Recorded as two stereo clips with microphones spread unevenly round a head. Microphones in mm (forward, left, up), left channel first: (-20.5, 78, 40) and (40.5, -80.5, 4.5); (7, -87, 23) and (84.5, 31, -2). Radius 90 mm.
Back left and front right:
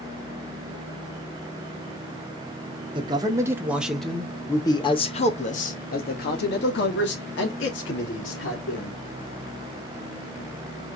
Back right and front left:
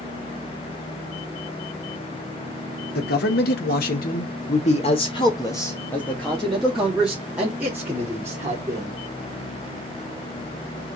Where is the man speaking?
125° right, 1.6 m; by 9.0 s 130° left, 3.5 m.